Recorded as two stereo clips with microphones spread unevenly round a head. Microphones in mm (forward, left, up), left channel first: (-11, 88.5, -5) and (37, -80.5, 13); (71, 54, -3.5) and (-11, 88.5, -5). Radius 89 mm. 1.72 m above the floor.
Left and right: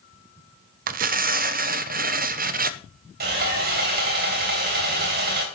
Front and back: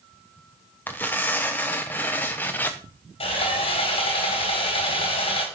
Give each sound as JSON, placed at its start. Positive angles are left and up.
{"t": 0.9, "sound": "tearing paper", "azimuth_deg": -95, "distance_m": 0.7}
{"t": 3.2, "sound": "sawing", "azimuth_deg": -45, "distance_m": 3.5}